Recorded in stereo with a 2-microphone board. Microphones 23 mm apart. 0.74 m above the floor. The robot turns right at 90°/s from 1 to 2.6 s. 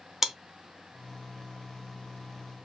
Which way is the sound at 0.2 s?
20° right (ahead or behind).